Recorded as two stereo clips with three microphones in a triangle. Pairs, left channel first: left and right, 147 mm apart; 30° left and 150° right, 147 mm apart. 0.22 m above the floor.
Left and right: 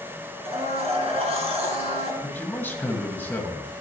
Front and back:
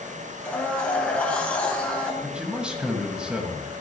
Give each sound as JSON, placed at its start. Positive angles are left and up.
{"t": 0.5, "sound": "a blender", "azimuth_deg": -50, "distance_m": 1.9}
{"t": 2.2, "sound": "a man speaking", "azimuth_deg": 140, "distance_m": 1.5}